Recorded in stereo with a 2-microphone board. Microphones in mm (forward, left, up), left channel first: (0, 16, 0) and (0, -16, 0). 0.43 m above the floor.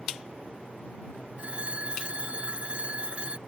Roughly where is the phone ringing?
Right.